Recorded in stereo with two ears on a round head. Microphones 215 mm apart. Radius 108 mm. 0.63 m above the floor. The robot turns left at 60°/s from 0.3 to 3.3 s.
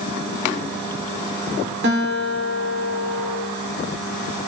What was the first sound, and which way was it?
A guitar, 55° right.